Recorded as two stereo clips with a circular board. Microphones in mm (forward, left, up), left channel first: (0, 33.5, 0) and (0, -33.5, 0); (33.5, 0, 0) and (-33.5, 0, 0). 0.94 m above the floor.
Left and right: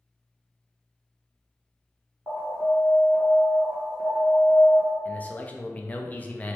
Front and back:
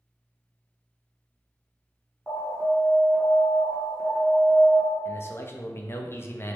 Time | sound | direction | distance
2.3 | an alarm | 75° right | 1.5 m
5.0 | a man speaking | 35° left | 0.6 m